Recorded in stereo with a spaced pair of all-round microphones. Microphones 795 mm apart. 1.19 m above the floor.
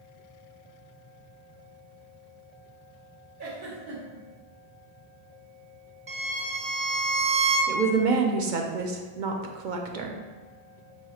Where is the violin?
40° right (ahead or behind), 1.2 m.